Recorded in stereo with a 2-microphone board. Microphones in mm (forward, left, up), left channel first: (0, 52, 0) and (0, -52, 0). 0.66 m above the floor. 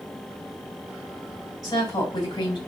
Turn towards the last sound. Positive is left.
turn(degrees=40)  # may be behind; listen again after turning